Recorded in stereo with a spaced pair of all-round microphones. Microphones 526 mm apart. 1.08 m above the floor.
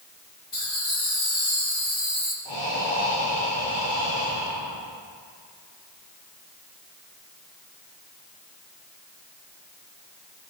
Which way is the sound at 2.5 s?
55° left (ahead or behind).